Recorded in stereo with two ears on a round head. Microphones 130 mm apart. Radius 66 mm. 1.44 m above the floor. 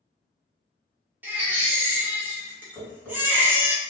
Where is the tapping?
10° right (ahead or behind), 1.7 m.